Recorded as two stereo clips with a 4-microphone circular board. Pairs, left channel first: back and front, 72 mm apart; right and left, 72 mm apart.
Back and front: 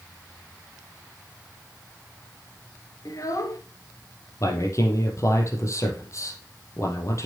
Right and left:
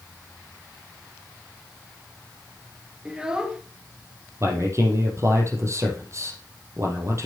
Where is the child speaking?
165° left, 1.5 m.